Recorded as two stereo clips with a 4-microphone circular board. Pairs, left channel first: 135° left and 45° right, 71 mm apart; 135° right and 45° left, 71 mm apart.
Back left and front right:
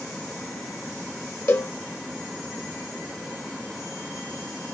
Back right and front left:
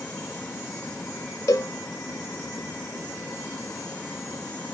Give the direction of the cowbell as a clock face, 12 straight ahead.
6 o'clock.